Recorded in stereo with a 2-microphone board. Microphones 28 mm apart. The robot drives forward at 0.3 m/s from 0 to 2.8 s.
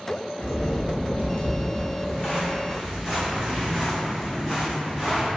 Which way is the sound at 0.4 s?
65° left (ahead or behind).